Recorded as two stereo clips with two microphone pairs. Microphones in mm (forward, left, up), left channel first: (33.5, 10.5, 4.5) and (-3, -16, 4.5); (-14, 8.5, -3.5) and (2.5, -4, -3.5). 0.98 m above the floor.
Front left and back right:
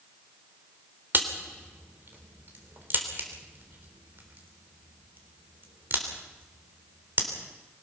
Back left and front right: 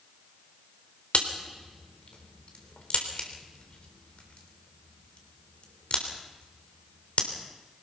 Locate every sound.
1.1 s a crack: 175° left, 3.5 m